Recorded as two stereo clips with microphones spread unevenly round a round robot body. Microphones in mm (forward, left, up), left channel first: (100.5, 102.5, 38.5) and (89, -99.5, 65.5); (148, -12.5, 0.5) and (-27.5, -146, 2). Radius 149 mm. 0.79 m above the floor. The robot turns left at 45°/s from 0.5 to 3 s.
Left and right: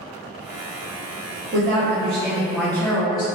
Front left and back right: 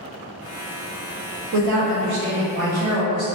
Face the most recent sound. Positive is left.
turn(degrees=150)